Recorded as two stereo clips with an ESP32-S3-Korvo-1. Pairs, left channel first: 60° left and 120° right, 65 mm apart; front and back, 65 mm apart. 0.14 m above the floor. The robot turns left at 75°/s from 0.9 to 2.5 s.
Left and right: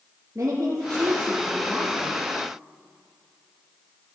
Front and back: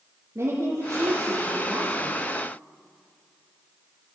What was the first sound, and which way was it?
A woman speaking, 150° right.